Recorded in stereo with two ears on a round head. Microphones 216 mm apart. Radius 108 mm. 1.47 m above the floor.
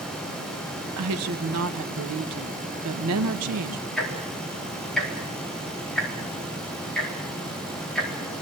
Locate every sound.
1.0 s a woman speaking: 70° right (ahead or behind), 1.2 m
4.0 s ticking: centre (ahead or behind), 4 m